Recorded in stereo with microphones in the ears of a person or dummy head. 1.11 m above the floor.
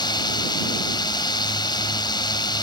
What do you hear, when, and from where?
0.0 s a drone: 20° left (ahead or behind)